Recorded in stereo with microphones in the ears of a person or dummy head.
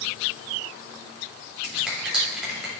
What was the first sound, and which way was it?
A finger snap, centre (ahead or behind).